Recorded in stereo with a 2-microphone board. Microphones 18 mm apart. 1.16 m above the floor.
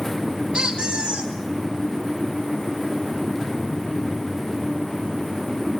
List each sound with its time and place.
0.5 s a squeak: 60° right (ahead or behind), 4 m